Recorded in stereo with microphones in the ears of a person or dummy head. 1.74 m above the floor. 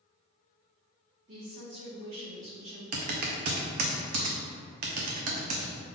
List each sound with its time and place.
1.3 s a woman speaking: 45° right (ahead or behind), 1.4 m
2.9 s typing on a keyboard: 55° right (ahead or behind), 0.7 m